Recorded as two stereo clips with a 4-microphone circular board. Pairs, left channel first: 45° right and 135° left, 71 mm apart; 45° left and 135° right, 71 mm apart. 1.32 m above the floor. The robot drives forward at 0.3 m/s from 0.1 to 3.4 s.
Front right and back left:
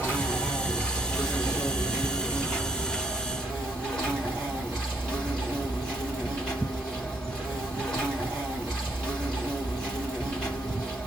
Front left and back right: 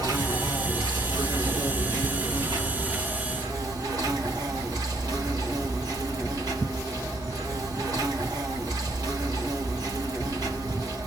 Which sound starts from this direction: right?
An insect, at 0.0 s.